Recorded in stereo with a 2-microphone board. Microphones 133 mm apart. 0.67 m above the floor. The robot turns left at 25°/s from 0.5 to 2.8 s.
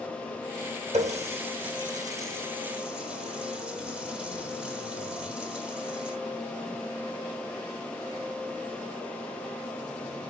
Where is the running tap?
55° right (ahead or behind), 1.4 m; by 6.2 s 5° right (ahead or behind), 1.4 m.